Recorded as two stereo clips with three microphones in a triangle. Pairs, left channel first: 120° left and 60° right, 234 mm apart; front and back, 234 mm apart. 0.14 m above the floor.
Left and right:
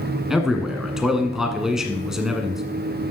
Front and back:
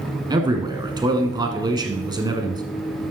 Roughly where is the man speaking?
Behind right.